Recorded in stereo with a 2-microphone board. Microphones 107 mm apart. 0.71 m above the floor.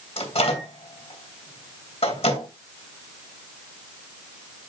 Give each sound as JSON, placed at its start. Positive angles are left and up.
{"t": 0.2, "sound": "a microwave", "side_deg": 80, "distance_m": 2.5}